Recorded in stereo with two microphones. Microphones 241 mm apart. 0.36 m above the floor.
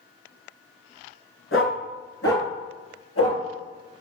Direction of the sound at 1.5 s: 60° left (ahead or behind).